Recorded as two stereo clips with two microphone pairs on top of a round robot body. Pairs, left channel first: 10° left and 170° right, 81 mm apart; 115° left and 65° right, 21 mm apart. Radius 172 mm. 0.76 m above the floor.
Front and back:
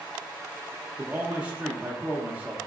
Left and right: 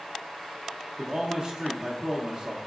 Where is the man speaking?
100° right, 0.6 m.